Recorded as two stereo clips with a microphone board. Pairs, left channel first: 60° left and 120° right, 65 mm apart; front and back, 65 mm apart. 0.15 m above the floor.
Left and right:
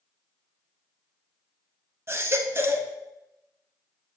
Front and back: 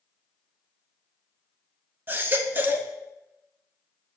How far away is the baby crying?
About 0.7 m.